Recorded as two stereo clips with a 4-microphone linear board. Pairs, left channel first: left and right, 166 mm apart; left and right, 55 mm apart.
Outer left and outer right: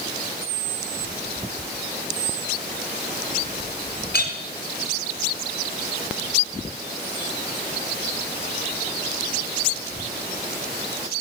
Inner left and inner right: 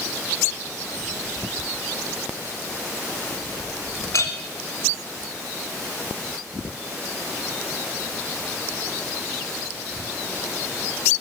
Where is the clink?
60° left (ahead or behind), 1.6 m.